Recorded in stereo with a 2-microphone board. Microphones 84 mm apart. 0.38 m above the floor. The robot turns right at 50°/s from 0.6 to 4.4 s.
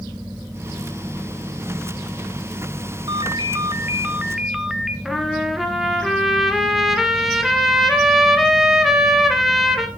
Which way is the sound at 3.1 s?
75° right.